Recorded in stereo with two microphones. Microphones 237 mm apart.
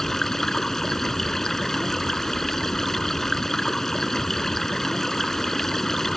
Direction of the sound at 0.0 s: Centre (ahead or behind).